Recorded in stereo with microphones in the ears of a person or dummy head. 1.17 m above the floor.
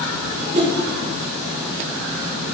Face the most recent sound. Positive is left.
turn(degrees=-35)  # may be behind; listen again after turning